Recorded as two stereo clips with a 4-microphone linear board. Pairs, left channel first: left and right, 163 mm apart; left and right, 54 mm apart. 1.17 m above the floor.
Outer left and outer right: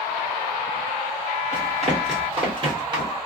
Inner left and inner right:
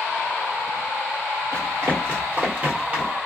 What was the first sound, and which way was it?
Running footsteps, 50° right (ahead or behind).